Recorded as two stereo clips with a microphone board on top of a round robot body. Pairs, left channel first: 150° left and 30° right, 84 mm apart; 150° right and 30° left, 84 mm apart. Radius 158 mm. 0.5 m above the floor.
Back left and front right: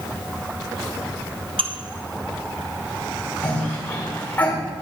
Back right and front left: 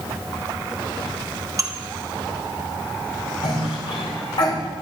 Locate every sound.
1.6 s dishes clattering: 20° right, 1.4 m
3.4 s a cough: 140° right, 5.5 m